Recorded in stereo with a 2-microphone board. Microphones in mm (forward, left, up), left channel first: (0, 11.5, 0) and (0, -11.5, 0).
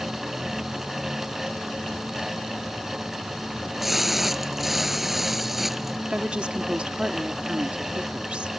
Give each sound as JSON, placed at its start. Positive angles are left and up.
{"t": 3.5, "sound": "a splash", "side_deg": -10}
{"t": 6.1, "sound": "a woman speaking", "side_deg": -50}